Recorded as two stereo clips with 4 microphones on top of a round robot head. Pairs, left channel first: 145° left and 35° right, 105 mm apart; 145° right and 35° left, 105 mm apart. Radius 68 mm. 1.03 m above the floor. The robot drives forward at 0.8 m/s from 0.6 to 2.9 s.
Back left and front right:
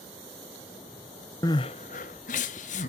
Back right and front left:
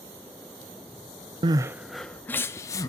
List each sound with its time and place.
1.4 s crying: 85° left, 0.5 m; by 2.9 s 155° left, 1.2 m